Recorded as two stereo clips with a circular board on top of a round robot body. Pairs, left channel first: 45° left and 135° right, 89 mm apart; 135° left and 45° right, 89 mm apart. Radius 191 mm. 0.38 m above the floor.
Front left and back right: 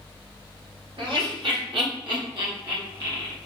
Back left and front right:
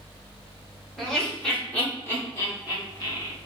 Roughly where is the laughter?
Behind right.